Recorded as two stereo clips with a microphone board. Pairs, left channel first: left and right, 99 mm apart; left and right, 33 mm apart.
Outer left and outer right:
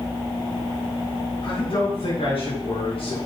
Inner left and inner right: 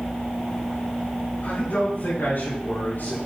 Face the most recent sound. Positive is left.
turn(degrees=70)  # may be behind; listen again after turning